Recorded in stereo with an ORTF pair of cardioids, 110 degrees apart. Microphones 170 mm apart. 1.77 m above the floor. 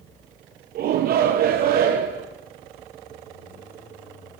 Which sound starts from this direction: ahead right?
A shout, at 0.8 s.